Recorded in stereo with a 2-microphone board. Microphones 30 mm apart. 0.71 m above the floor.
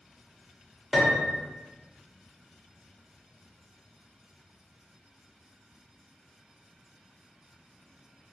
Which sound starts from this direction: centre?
A piano, at 0.9 s.